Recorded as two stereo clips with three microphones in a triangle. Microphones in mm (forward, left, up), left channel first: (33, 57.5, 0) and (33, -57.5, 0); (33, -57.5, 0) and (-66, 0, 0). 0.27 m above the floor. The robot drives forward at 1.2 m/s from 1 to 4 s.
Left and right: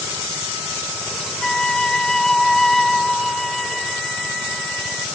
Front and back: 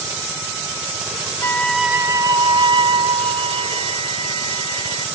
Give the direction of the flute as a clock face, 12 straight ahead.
12 o'clock.